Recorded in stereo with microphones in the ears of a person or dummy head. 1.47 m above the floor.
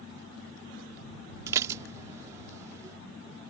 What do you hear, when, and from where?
1.5 s dishes clattering: 10° right (ahead or behind)